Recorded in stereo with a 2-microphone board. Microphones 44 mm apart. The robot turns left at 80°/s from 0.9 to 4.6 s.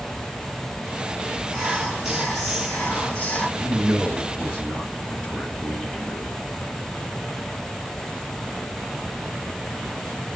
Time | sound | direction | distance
1.5 | whispering | 20° right (ahead or behind) | 1.2 m
3.6 | a man speaking | 95° right | 1.6 m